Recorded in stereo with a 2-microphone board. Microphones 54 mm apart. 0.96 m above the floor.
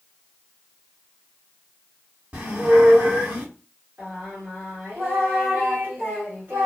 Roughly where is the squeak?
Right.